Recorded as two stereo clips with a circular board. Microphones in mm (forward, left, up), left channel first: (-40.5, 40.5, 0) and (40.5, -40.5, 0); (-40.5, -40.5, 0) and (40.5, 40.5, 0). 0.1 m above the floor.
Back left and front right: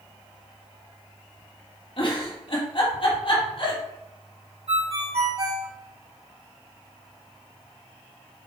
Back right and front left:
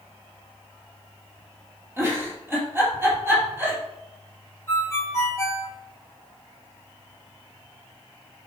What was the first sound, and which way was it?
A giggle, 110° left.